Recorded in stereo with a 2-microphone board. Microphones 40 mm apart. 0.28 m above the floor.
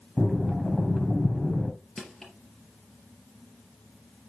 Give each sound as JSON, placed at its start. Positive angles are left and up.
{"t": 0.2, "sound": "breathing", "side_deg": 0, "distance_m": 2.0}
{"t": 2.0, "sound": "crushing", "side_deg": 15, "distance_m": 4.0}